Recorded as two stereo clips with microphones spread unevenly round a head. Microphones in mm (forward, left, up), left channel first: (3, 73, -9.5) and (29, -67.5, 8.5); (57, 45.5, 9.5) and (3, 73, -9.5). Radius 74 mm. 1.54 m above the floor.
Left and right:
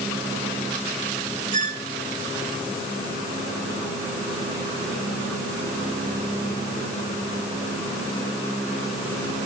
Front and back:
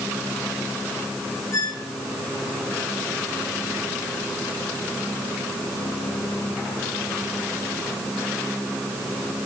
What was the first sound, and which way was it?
A squeak, 55° right.